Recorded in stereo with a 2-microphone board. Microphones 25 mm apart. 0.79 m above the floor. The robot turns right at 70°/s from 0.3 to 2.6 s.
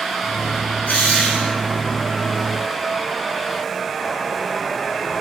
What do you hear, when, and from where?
0.8 s a drill: 90° left, 8 m; by 1.6 s 140° left, 8 m